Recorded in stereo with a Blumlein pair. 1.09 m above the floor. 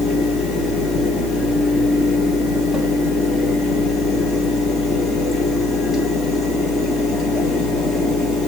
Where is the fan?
10° left, 1.3 m.